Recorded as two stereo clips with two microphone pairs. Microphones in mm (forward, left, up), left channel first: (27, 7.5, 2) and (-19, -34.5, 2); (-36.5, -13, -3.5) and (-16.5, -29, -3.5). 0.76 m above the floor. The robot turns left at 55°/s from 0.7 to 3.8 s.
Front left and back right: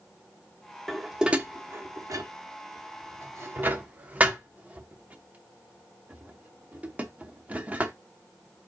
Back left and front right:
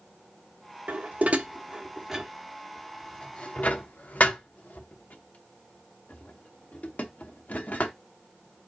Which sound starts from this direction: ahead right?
Dishes clattering, at 0.9 s.